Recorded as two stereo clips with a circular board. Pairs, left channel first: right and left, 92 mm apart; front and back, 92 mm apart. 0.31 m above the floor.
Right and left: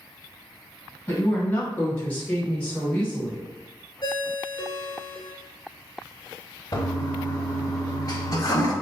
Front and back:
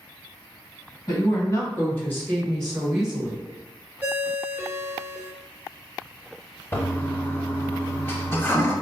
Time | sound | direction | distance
1.1 | a woman speaking | 25° right | 2.0 m
4.0 | a ringtone | 115° right | 0.7 m
6.7 | a toilet flushing | 60° right | 0.7 m